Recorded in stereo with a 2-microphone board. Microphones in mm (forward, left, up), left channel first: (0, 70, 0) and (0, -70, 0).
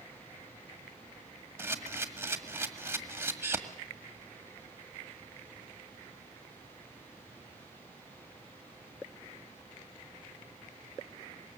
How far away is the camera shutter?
About 1.7 m.